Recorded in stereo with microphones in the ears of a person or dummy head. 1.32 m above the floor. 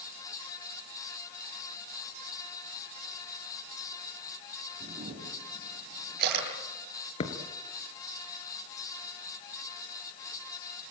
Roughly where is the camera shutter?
Right.